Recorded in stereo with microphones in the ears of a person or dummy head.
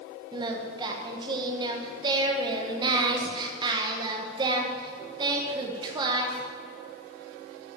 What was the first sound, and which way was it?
Singing, 25° right (ahead or behind).